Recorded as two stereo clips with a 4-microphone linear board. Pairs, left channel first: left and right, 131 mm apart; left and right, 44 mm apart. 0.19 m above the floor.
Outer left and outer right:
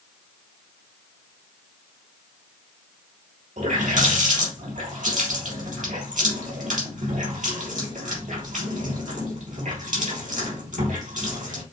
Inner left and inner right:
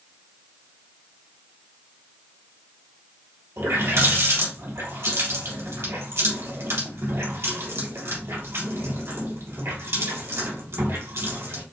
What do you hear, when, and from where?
3.6 s a running tap: 75° right (ahead or behind), 3 m